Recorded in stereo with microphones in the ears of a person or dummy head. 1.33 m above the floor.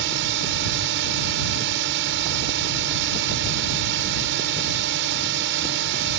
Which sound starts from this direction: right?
A drone, at 0.0 s.